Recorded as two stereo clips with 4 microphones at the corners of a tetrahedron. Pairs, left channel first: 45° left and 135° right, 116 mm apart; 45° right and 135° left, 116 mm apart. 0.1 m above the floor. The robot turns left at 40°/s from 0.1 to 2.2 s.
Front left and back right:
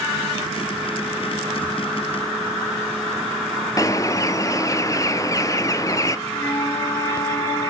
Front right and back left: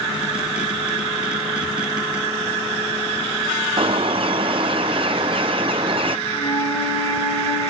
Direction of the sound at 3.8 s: 105° left.